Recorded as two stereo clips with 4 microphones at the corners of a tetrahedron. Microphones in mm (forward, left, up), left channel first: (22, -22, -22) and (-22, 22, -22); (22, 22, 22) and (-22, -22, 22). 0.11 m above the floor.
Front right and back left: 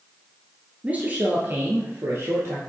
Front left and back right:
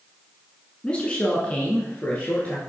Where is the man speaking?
100° left, 1.1 m; by 2.6 s 105° left, 1.7 m.